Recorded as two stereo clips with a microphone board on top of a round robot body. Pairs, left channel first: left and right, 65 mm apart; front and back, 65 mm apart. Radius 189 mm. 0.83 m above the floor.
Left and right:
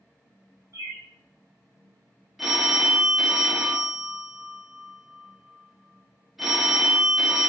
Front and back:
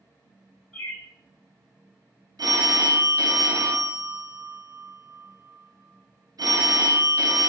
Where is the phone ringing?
175° right, 0.6 m.